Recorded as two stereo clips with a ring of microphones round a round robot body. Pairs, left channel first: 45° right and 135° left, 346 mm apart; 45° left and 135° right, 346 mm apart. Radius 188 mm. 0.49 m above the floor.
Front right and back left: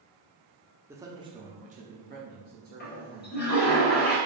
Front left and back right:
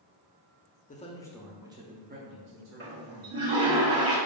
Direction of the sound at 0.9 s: 60° left.